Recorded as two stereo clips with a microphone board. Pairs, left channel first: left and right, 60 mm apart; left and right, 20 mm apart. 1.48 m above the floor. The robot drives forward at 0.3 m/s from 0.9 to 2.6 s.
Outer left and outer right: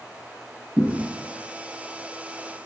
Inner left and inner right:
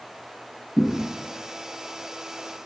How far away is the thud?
About 2.0 m.